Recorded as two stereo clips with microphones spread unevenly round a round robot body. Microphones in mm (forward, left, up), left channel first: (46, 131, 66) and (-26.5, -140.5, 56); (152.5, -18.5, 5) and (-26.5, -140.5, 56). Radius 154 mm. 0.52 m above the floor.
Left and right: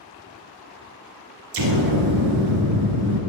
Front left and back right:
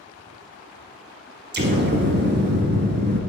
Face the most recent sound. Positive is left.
turn(degrees=-110)